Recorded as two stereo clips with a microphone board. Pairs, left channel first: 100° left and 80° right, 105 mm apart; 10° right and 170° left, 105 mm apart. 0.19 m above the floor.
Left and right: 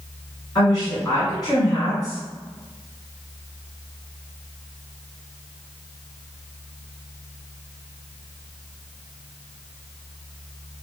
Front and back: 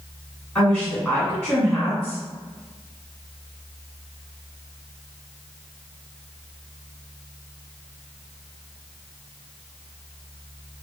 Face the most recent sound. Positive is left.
turn(degrees=80)